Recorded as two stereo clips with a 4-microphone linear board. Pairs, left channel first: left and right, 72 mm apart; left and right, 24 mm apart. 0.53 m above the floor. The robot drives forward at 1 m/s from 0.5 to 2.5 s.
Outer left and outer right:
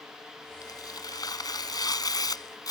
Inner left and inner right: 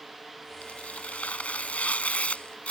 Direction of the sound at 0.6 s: 70° left (ahead or behind).